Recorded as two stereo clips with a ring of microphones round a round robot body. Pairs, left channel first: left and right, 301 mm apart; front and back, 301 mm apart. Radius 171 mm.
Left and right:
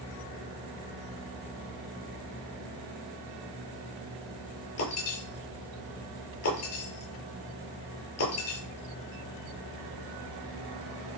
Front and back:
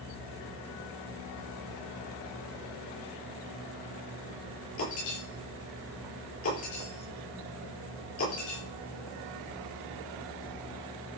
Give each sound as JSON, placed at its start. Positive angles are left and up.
{"t": 4.8, "sound": "breaking glass", "azimuth_deg": 50, "distance_m": 8.0}